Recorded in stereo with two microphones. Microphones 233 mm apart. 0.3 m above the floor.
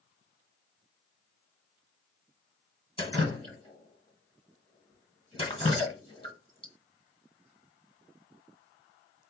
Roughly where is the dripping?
Left.